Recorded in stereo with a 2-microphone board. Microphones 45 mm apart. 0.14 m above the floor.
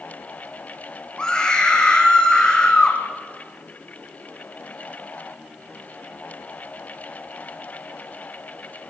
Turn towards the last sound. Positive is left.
turn(degrees=15)  # may be behind; listen again after turning